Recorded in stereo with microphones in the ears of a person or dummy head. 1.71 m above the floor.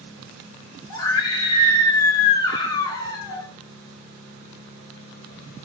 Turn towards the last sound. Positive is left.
turn(degrees=25)  # may be behind; listen again after turning